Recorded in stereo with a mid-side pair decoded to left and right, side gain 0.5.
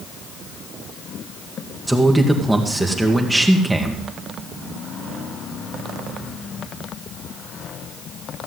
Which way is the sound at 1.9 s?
10° right.